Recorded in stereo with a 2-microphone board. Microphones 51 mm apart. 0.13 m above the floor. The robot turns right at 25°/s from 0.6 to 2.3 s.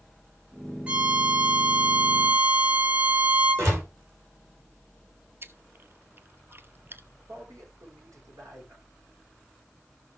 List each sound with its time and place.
0.9 s a violin: 125° right, 1.4 m; by 3.7 s 90° right, 1.4 m
3.6 s a door slam: 55° right (ahead or behind), 8 m
5.4 s chewing: 45° right (ahead or behind), 0.8 m
7.3 s a man speaking: 80° right, 7.5 m